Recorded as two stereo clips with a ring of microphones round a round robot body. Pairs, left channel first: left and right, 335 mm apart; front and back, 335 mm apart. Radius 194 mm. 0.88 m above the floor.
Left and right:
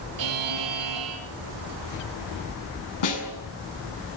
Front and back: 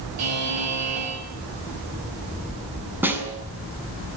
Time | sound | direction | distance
0.2 | a buzzer | 130° right | 6.5 m
3.0 | a snare drum | 95° left | 6.5 m